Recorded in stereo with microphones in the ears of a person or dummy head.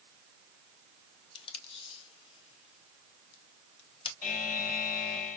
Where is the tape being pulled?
30° left (ahead or behind), 1.2 m.